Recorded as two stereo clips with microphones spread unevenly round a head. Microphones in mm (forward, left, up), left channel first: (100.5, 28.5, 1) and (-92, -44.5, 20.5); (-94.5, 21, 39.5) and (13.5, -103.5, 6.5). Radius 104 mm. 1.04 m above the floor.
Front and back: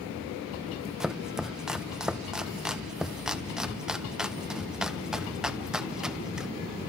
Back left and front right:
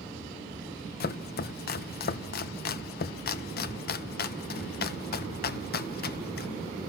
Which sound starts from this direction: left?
Chopping, at 1.0 s.